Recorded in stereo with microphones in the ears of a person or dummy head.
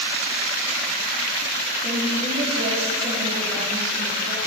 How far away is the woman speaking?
About 2.5 m.